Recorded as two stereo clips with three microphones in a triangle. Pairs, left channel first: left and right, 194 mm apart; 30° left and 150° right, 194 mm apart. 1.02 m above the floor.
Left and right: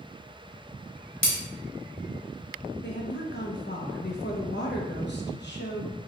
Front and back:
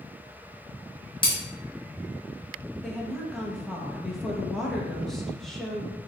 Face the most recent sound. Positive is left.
turn(degrees=120)